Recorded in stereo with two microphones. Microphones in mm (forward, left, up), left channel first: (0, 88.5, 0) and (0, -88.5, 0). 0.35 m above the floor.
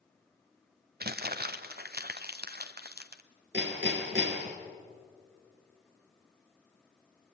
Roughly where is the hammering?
Right.